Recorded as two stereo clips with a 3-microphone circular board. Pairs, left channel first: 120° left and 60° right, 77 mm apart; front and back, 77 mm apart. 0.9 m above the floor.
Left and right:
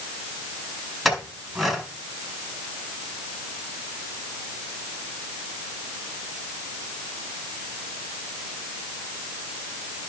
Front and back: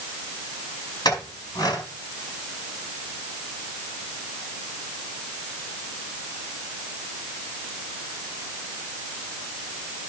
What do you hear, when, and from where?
1.1 s a clink: 30° left, 4.5 m